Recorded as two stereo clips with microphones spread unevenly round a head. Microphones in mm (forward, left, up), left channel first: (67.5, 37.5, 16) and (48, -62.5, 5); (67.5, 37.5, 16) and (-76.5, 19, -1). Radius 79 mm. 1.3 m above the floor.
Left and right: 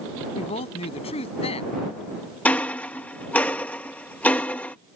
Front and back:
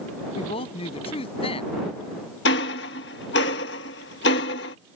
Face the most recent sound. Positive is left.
turn(degrees=5)